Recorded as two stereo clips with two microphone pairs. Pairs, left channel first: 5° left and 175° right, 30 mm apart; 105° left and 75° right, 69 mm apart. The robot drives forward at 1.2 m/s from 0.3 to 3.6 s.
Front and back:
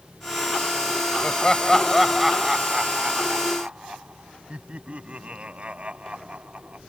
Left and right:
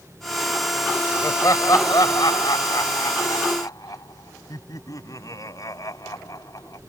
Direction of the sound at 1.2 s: 65° left.